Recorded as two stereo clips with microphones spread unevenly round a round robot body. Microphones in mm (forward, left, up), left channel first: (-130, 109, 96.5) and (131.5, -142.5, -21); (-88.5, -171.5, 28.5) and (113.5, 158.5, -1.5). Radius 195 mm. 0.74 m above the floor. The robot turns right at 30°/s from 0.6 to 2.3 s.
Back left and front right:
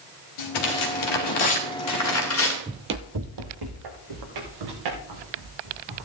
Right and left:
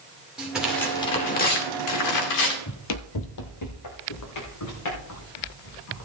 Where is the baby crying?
I don't hear a baby crying.